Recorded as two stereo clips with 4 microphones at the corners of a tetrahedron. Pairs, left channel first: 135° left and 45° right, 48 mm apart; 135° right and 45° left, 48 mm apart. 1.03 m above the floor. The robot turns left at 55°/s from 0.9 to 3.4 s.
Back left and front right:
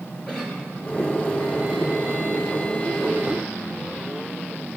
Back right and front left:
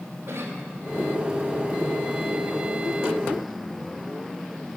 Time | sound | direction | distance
0.3 | a cough | 60° left | 3.5 m